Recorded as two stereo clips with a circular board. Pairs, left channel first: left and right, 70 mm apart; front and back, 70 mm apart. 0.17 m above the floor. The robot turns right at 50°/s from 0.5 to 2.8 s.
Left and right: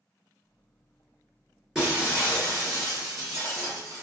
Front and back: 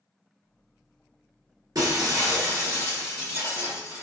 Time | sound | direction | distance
1.8 | breaking glass | 175° right | 1.8 m